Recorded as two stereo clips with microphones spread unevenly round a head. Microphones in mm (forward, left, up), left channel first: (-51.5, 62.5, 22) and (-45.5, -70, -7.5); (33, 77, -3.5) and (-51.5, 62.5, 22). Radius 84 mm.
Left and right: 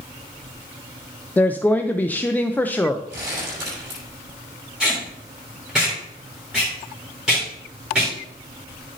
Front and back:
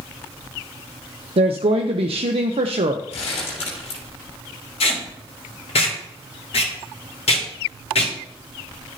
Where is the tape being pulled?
Straight ahead, 3 m.